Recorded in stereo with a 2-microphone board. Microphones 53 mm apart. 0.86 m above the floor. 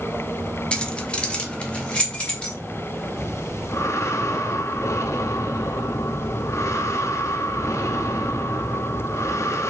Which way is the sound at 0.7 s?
20° left (ahead or behind).